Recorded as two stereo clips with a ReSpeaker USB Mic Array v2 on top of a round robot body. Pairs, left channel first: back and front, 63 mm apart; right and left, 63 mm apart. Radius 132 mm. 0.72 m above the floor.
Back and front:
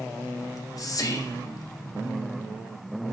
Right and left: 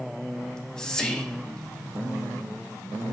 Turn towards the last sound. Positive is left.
turn(degrees=-170)